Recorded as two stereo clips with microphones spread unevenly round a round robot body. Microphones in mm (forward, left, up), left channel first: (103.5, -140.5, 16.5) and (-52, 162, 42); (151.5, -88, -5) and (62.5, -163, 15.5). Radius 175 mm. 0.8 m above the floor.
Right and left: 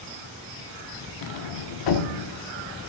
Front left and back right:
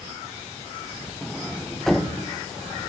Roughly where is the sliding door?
Ahead right.